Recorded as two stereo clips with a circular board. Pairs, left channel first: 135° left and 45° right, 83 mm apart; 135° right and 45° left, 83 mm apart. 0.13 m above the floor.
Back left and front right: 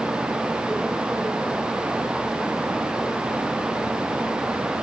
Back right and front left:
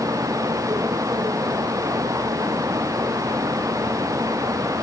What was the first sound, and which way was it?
Only background noise.